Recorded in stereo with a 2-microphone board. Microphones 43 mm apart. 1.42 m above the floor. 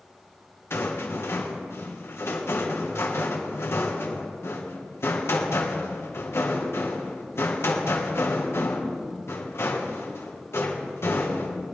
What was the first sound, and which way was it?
A rattle, 70° left (ahead or behind).